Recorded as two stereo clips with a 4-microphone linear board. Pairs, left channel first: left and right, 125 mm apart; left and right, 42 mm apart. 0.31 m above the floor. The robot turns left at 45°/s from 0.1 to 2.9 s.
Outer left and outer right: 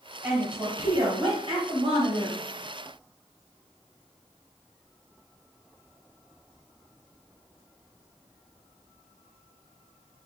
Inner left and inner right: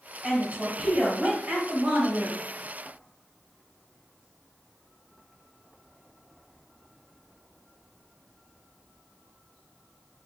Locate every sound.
0.2 s a woman speaking: 10° right, 2.0 m; by 2.4 s 105° right, 2.0 m